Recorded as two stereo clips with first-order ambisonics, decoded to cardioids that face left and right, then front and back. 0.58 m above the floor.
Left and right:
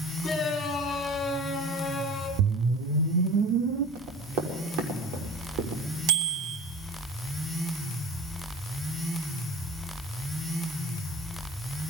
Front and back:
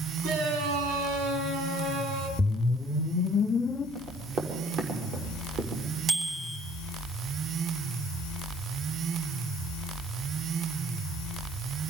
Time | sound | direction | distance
0.2 | a shout | 160° left | 7.5 m
2.4 | a whoosh | 85° right | 0.7 m
4.0 | running footsteps | 125° right | 6.5 m
6.1 | a bicycle bell | 115° right | 3 m